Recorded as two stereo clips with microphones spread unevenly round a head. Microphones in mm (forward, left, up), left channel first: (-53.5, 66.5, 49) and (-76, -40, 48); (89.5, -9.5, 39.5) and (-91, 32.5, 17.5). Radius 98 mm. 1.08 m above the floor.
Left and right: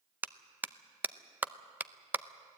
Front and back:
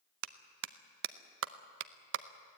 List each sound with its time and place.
0.2 s a clap: 175° right, 0.7 m